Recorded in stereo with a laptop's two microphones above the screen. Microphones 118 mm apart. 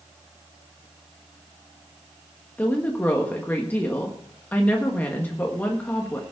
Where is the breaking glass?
No breaking glass in this recording.